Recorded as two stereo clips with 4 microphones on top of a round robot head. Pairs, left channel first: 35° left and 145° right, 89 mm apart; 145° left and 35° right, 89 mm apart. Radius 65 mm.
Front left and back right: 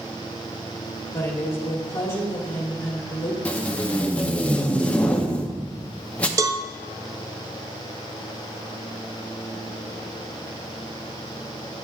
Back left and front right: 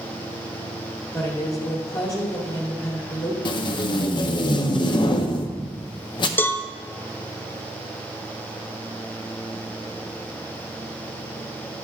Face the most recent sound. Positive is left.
turn(degrees=-165)